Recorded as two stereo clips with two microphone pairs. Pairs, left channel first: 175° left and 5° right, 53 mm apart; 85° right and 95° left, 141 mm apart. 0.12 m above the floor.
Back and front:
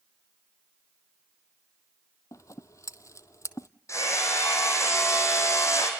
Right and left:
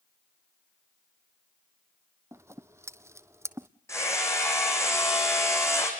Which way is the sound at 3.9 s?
155° right.